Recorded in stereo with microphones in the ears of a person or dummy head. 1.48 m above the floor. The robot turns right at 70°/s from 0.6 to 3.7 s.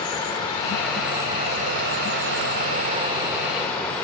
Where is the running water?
150° left, 1.1 m; by 4.0 s 10° left, 1.1 m.